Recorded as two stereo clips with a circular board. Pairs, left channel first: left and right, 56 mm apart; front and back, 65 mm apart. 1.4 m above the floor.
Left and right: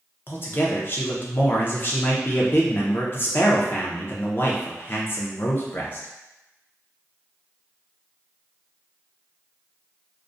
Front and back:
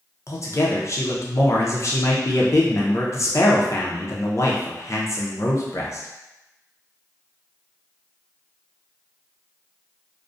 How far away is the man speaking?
About 0.6 m.